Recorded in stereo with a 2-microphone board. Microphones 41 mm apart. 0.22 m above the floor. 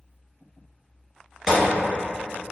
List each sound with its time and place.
1.5 s a gunshot: 10° right (ahead or behind), 1.7 m